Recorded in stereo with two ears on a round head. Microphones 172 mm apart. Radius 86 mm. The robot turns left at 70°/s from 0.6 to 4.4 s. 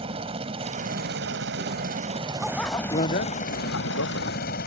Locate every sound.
0.0 s a helicopter: 30° right; by 4.7 s 60° left
2.4 s a bicycle bell: 175° right; by 4.7 s 45° left